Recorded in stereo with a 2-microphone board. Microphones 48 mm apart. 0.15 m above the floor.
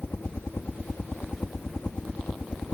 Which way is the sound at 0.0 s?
55° left (ahead or behind).